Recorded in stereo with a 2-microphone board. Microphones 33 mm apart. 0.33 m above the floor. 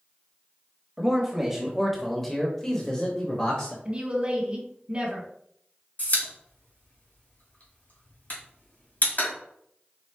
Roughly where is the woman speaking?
Right.